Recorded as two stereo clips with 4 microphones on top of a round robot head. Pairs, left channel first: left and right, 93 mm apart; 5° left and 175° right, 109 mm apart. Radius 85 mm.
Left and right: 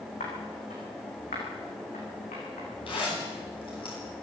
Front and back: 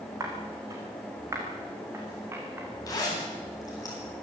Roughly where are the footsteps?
Behind left.